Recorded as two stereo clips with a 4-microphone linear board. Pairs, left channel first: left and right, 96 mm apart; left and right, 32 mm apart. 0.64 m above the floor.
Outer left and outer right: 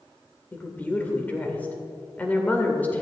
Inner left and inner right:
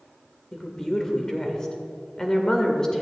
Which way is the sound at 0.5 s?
15° left (ahead or behind).